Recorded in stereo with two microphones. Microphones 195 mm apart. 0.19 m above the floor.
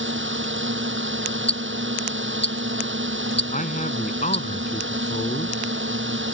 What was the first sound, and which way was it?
A drone, 80° right.